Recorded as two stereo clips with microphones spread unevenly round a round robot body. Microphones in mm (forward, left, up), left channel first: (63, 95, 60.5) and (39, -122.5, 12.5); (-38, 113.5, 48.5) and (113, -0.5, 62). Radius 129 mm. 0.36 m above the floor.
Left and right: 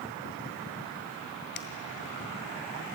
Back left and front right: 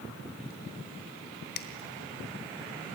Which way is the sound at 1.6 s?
130° left.